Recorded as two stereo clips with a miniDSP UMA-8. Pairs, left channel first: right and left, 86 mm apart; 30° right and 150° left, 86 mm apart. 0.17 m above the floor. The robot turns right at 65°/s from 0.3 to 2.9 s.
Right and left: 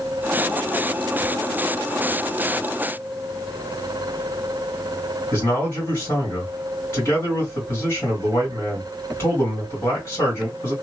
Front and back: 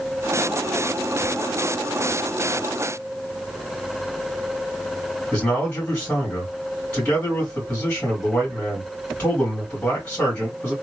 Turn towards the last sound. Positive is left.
turn(degrees=-85)